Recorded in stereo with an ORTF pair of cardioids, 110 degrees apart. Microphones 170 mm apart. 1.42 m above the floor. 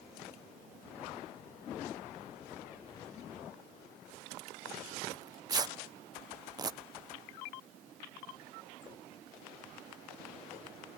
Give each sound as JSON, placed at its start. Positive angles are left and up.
{"t": 5.1, "sound": "tearing paper", "azimuth_deg": -25}